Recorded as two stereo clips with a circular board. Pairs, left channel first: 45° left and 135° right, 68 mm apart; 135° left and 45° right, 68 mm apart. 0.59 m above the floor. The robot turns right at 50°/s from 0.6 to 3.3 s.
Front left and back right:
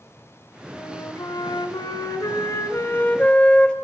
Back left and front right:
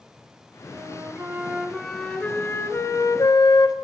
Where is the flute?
5° right, 2.5 m; by 3.8 s 120° left, 2.5 m.